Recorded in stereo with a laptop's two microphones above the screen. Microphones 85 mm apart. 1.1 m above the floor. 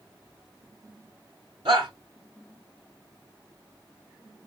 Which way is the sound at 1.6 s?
75° right (ahead or behind).